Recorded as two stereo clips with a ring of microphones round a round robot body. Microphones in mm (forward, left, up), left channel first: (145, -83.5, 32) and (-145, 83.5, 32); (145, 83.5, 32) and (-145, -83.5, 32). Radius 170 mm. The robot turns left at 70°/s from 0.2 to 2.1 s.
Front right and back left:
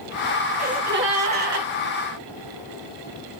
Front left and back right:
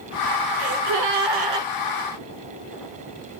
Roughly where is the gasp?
Behind right.